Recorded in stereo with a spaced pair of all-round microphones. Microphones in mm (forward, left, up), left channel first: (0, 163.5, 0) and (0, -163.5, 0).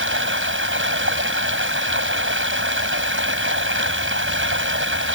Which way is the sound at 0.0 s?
35° right (ahead or behind).